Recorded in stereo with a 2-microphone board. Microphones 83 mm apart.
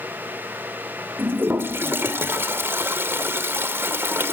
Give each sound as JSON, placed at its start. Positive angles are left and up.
{"t": 1.2, "sound": "a toilet flushing", "side_deg": -30, "distance_m": 1.6}